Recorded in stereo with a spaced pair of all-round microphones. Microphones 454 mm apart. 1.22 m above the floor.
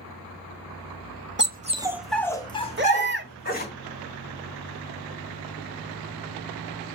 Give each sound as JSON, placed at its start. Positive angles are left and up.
{"t": 1.4, "sound": "a dog barking", "side_deg": -25, "distance_m": 0.7}
{"t": 2.8, "sound": "a baby crying", "side_deg": -25, "distance_m": 1.2}